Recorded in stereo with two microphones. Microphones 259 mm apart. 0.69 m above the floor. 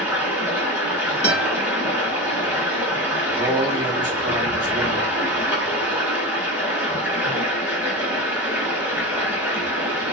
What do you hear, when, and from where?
0.0 s running water: 5° right (ahead or behind), 1.1 m
1.2 s a guitar: 45° left (ahead or behind), 1.4 m
3.3 s a man speaking: 15° right (ahead or behind), 1.0 m